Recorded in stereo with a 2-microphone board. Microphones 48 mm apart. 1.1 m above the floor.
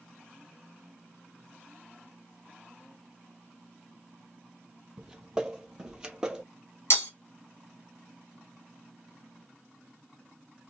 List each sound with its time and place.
5.0 s footsteps: 15° right (ahead or behind), 1.3 m
6.9 s breaking glass: 60° left (ahead or behind), 2.5 m